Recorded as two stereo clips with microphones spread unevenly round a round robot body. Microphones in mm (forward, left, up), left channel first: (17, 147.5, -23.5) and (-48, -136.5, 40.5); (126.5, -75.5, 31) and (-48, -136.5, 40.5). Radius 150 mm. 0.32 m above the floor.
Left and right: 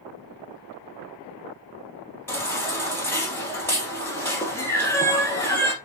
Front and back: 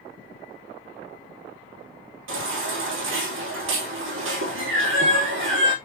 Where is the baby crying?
160° left, 3 m.